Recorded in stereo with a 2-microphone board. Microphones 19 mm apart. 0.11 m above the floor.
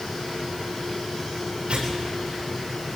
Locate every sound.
1.7 s tearing paper: 80° right, 8 m